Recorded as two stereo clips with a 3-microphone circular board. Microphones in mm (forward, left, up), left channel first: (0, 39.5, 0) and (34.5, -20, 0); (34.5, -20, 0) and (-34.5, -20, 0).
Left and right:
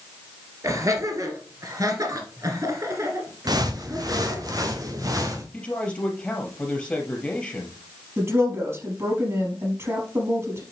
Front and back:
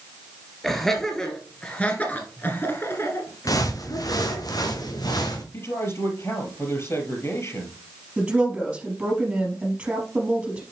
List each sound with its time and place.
0.6 s laughter: 85° right, 2.5 m; by 4.5 s 10° right, 2 m
3.5 s footsteps: 35° right, 1.6 m; by 5.4 s 25° right, 2.5 m
5.5 s a man speaking: 45° left, 3.5 m
8.2 s a woman speaking: 105° right, 4 m